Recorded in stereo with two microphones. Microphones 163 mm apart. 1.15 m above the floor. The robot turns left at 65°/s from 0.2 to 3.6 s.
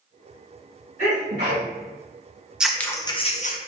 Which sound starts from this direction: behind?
Scissors, at 2.6 s.